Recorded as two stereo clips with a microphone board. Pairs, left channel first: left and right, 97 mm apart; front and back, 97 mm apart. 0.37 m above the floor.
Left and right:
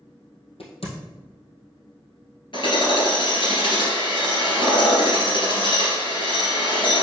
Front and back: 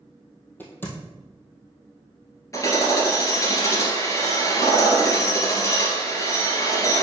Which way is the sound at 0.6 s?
70° left.